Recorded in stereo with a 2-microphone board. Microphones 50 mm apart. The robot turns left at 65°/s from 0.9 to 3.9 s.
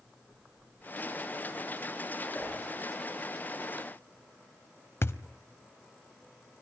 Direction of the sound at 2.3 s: 35° left (ahead or behind).